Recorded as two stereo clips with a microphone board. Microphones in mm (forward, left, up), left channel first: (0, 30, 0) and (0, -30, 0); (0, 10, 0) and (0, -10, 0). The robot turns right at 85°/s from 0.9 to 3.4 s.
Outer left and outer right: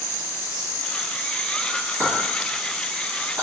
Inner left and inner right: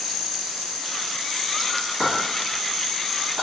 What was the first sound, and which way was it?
A clink, 50° right (ahead or behind).